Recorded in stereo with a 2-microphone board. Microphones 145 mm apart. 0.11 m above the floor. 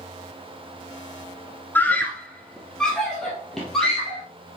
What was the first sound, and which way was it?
A scream, 15° left (ahead or behind).